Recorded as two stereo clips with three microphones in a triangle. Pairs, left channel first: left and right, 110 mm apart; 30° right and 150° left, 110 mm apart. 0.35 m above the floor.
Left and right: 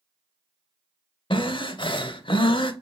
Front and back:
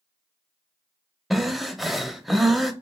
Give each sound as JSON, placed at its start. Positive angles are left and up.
{"t": 1.3, "sound": "breathing", "azimuth_deg": 60, "distance_m": 0.6}